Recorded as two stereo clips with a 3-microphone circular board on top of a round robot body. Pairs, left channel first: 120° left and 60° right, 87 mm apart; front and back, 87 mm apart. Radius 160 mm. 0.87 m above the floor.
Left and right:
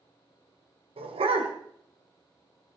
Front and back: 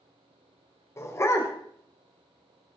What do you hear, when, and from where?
1.0 s a dog barking: 60° right, 1.8 m